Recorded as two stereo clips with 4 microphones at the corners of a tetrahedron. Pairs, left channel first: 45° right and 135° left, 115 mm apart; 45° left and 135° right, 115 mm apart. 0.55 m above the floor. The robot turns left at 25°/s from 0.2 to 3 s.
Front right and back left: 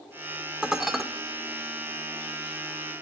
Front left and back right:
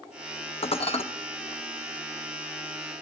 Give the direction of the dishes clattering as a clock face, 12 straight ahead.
10 o'clock.